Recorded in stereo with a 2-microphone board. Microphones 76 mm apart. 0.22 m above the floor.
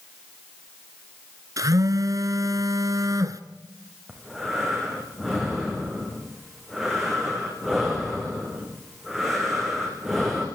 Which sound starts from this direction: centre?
Breathing, at 4.1 s.